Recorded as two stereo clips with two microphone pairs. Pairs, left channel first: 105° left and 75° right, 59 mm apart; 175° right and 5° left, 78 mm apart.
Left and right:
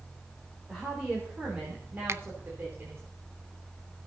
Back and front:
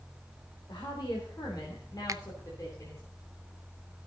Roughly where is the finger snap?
Ahead right.